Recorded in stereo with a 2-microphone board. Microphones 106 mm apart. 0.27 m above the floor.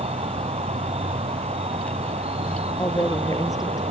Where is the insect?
70° right (ahead or behind).